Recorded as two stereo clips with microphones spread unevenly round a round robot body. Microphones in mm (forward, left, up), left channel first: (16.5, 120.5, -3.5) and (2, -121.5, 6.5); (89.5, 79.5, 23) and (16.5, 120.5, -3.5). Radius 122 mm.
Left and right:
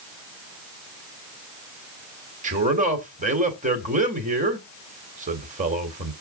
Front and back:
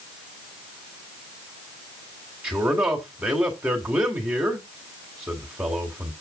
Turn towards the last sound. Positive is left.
turn(degrees=-150)